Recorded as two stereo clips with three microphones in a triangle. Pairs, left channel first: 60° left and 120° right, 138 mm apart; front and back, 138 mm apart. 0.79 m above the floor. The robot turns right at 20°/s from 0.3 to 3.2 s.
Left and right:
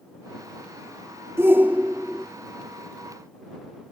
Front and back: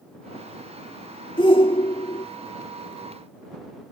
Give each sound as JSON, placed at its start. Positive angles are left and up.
{"t": 1.4, "sound": "a shout", "azimuth_deg": -50}